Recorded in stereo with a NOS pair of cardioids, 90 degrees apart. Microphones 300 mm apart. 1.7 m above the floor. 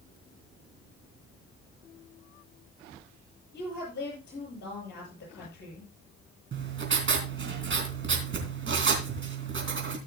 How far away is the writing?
About 3 m.